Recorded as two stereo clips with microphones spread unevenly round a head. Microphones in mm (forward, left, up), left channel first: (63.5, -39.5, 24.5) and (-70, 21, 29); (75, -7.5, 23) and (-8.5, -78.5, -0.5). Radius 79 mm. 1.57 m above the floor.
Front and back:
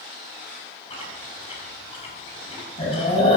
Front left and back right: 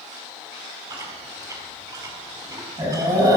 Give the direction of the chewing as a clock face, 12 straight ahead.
3 o'clock.